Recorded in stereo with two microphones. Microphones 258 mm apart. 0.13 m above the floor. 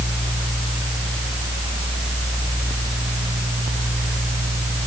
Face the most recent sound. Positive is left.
No sound to turn to.